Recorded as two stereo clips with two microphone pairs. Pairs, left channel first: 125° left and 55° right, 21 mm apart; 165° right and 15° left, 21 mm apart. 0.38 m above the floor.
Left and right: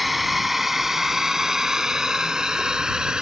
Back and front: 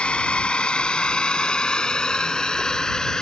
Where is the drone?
140° right; by 3.2 s 105° right.